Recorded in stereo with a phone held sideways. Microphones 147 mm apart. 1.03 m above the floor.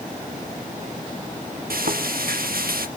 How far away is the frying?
About 1.2 m.